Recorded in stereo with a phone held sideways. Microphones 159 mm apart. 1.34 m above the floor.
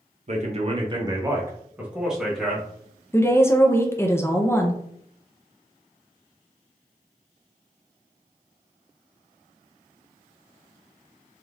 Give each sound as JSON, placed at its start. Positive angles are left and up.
{"t": 0.3, "sound": "a man speaking", "side_deg": -50, "distance_m": 0.7}
{"t": 3.1, "sound": "a woman speaking", "side_deg": 15, "distance_m": 0.5}